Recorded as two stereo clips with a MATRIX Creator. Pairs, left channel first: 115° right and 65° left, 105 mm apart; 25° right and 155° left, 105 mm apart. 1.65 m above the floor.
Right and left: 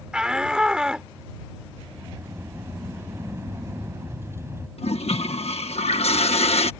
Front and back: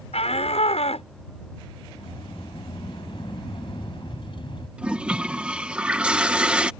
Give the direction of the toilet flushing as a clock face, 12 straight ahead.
4 o'clock.